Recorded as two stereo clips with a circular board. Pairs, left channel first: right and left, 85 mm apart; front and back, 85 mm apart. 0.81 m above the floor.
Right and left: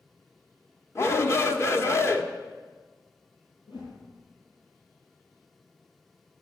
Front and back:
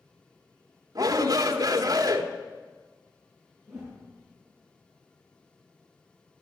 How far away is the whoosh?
About 9 m.